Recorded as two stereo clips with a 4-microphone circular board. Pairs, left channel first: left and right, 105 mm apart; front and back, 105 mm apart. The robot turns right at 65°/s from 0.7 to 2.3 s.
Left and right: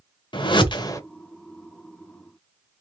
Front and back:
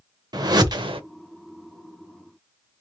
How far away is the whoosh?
About 0.7 m.